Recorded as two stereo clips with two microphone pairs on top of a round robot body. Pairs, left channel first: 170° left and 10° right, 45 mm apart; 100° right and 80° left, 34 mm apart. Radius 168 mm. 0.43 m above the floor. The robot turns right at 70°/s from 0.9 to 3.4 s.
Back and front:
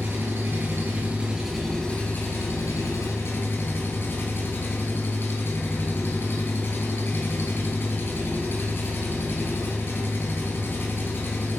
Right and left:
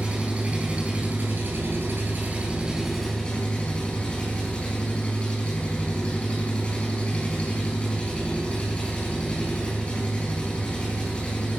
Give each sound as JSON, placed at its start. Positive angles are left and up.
{"t": 0.0, "sound": "an engine running", "azimuth_deg": 30, "distance_m": 4.0}